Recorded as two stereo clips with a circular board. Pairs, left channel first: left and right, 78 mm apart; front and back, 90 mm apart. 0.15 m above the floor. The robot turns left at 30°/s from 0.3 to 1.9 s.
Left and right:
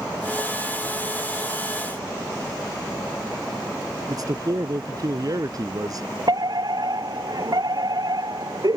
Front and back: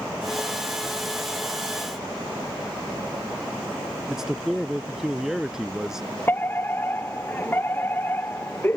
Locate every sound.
4.1 s a man speaking: 95° right
6.3 s a fire alarm: 65° right